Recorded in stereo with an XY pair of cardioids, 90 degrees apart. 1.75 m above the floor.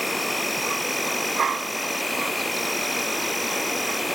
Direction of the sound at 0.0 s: 5° left.